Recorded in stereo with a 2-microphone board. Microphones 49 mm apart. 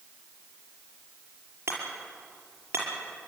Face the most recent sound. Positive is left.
turn(degrees=-65)  # may be behind; listen again after turning